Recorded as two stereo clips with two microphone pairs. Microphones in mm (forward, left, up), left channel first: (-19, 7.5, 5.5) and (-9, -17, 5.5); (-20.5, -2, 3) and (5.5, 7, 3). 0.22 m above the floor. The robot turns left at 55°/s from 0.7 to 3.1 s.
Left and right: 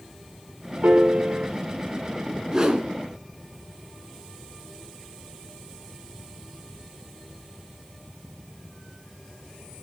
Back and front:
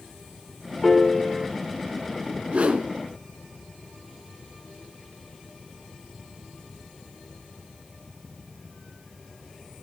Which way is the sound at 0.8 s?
70° right.